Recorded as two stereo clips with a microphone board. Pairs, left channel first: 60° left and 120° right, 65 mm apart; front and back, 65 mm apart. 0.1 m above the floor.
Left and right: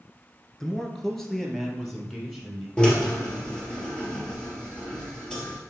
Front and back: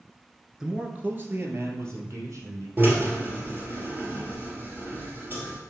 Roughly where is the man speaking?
Behind left.